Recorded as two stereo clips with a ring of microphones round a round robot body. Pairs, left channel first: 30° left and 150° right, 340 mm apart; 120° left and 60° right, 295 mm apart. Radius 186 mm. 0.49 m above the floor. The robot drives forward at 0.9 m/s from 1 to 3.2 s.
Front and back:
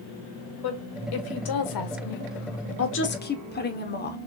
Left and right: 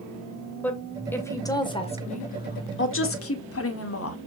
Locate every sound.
0.6 s a woman speaking: 35° left, 2.5 m; by 4.2 s 90° left, 1.8 m